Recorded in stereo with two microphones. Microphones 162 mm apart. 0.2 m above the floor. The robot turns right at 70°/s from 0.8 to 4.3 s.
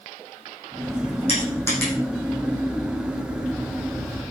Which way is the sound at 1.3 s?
45° left (ahead or behind).